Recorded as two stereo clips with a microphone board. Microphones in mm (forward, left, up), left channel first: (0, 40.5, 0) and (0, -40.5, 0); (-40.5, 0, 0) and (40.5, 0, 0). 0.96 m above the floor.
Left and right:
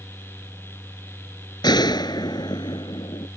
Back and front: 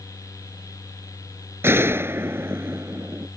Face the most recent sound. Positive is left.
turn(degrees=60)